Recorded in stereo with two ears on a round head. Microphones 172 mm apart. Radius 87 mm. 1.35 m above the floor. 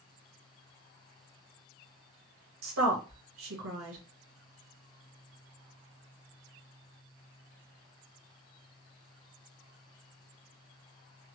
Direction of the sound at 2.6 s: 75° right (ahead or behind).